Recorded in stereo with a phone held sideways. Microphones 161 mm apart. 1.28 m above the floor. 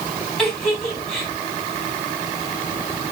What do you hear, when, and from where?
0.4 s a giggle: 5° left (ahead or behind), 4.5 m